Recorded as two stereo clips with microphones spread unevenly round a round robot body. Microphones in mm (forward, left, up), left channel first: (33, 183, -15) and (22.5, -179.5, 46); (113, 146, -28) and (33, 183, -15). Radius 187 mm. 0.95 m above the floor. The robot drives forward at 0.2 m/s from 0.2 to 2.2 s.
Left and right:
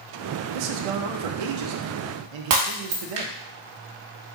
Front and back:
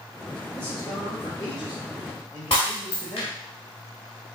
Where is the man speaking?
85° right, 0.7 m; by 3.4 s 110° right, 0.7 m.